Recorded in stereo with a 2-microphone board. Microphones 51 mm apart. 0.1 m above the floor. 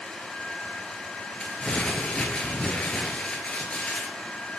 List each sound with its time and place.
1.4 s crumpling: 20° left (ahead or behind), 0.9 m